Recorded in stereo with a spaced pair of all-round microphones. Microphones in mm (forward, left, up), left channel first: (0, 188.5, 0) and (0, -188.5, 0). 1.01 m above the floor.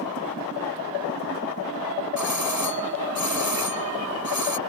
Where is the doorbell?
50° left (ahead or behind).